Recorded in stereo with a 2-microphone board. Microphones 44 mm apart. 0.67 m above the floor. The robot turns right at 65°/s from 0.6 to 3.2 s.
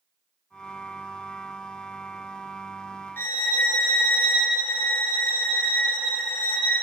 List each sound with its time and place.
3.2 s a violin: 55° left (ahead or behind), 0.7 m; by 6.8 s 50° left (ahead or behind), 0.7 m